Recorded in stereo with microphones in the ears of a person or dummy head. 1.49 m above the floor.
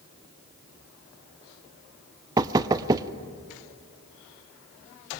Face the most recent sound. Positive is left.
turn(degrees=-20)  # may be behind; listen again after turning